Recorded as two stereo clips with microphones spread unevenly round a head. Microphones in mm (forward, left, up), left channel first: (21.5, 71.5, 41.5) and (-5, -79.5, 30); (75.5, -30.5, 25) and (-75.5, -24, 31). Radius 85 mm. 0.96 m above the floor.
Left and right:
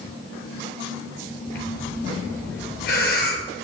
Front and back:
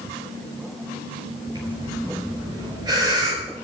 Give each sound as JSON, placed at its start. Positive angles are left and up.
{"t": 1.6, "sound": "breathing", "azimuth_deg": 110, "distance_m": 4.5}